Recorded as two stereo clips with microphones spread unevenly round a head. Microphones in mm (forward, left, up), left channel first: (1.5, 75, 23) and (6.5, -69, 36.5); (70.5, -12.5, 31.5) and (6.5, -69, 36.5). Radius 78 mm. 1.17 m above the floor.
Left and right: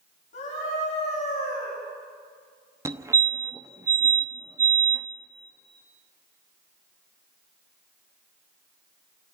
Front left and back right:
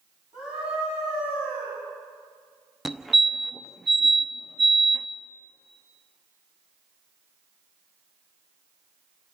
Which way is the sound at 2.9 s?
45° right.